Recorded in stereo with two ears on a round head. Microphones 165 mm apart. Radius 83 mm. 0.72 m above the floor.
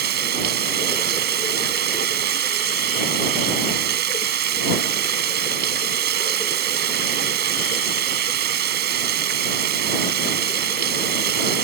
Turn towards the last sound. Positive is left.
turn(degrees=-65)  # may be behind; listen again after turning